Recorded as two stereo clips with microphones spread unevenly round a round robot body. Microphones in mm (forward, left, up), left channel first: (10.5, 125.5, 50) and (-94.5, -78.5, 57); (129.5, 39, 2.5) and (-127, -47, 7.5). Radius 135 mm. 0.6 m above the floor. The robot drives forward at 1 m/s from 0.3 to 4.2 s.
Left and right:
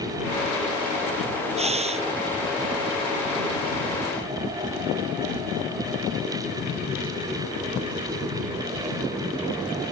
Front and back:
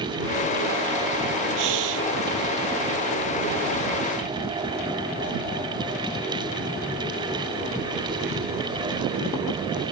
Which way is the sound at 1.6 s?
Straight behind.